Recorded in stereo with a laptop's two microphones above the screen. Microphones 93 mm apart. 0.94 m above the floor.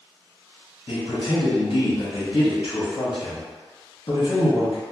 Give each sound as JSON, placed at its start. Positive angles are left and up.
{"t": 0.9, "sound": "a man speaking", "side_deg": 65, "distance_m": 1.2}